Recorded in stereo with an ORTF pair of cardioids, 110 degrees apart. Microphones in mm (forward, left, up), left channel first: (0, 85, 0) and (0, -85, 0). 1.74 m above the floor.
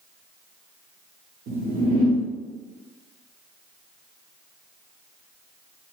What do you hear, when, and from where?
1.5 s a whoosh: 70° right, 1.7 m